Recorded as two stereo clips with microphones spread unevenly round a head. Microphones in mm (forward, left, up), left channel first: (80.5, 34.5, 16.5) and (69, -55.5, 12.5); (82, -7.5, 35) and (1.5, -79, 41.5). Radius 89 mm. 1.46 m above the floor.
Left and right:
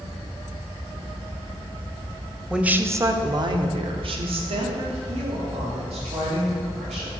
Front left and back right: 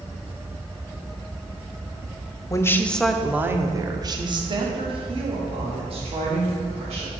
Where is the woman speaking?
15° right, 0.7 m; by 7.1 s 110° right, 2.5 m.